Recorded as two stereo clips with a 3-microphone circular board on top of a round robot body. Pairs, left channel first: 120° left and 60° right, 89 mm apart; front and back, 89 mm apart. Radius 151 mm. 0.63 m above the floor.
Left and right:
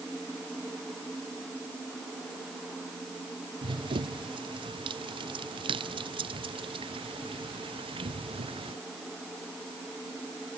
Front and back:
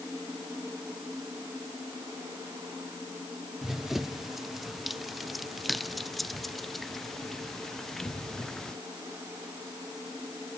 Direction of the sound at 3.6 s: 95° right.